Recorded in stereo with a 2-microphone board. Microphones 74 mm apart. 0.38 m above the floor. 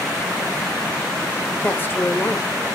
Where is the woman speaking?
30° left (ahead or behind), 1.3 m.